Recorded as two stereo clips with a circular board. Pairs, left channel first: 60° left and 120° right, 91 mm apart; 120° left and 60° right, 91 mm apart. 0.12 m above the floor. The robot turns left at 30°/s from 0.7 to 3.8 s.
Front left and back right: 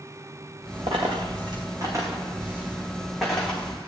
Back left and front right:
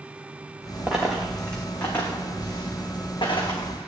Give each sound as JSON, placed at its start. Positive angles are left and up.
{"t": 0.9, "sound": "a dropped coin", "azimuth_deg": -140, "distance_m": 2.5}